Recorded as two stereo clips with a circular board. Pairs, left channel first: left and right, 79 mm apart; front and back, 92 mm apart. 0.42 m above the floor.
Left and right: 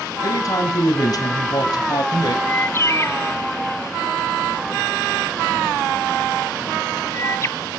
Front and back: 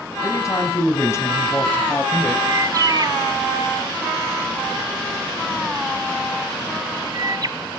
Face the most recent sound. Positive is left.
turn(degrees=140)